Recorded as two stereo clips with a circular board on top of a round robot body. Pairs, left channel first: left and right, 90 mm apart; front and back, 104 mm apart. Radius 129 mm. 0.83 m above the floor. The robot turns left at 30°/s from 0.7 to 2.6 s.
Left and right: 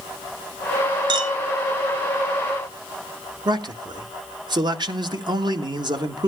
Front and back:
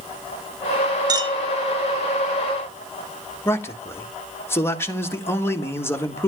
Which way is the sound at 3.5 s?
65° right.